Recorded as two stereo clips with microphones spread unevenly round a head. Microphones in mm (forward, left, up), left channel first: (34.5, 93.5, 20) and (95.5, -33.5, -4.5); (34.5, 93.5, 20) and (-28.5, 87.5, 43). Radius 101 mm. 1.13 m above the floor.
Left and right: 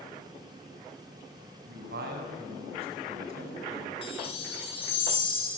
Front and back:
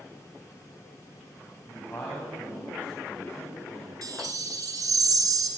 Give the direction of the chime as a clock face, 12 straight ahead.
6 o'clock.